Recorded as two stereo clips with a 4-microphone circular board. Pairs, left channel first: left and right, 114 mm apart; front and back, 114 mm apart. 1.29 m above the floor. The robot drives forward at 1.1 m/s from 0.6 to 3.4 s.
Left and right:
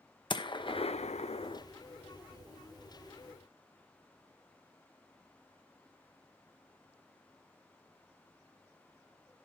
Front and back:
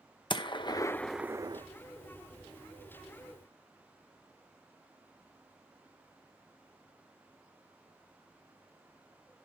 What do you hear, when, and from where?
0.3 s a gunshot: 45° left, 0.8 m; by 1.6 s 135° left, 0.8 m